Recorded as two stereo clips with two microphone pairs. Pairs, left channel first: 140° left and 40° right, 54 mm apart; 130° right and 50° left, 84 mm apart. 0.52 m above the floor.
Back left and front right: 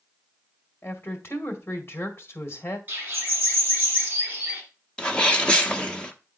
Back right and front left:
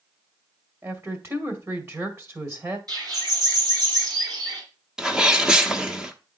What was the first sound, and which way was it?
A woman speaking, 100° left.